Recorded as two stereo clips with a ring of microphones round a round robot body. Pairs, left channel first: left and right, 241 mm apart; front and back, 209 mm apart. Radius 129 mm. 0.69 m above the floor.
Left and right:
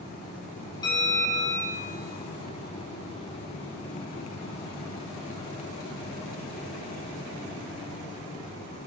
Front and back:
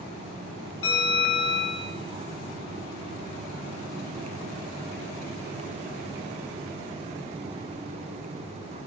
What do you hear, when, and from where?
0.8 s a bell: 15° left, 9.5 m